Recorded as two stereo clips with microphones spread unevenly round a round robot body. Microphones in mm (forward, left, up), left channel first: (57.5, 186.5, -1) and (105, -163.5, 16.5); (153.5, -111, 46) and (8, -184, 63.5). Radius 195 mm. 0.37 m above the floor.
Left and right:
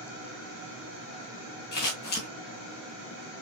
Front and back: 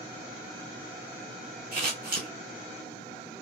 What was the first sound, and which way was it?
Scissors, 160° left.